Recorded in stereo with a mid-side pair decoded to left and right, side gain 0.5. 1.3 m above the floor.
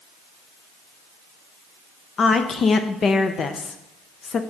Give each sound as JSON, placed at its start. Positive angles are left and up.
{"t": 2.2, "sound": "a woman speaking", "azimuth_deg": 45, "distance_m": 0.5}